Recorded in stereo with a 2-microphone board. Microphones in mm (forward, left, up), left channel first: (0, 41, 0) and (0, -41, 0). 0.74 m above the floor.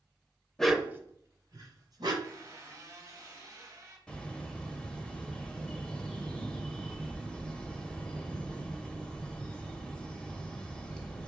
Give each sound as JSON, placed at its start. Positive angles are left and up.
{"t": 0.6, "sound": "a dog barking", "side_deg": 10, "distance_m": 0.5}
{"t": 2.2, "sound": "a squeak", "side_deg": -45, "distance_m": 1.9}
{"t": 4.1, "sound": "a bird", "side_deg": 10, "distance_m": 0.9}